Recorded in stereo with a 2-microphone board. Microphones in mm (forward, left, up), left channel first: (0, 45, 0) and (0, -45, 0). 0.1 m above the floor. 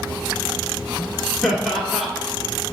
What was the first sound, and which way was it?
Laughter, centre (ahead or behind).